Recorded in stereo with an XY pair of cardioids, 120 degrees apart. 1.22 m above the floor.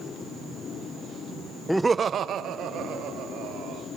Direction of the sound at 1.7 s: 5° left.